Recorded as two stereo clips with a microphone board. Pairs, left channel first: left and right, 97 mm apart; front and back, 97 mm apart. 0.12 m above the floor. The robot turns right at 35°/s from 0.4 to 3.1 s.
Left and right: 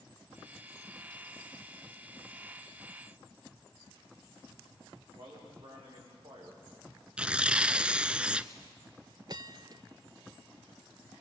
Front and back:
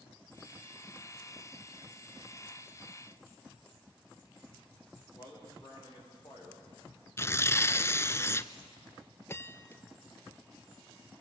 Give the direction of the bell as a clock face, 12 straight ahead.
2 o'clock.